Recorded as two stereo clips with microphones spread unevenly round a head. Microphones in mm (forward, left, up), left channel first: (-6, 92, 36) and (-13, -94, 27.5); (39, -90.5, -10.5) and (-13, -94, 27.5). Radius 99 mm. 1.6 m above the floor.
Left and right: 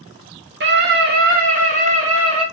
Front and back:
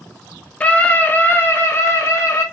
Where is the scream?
60° right, 1.7 m; by 2.5 s 30° right, 2.5 m.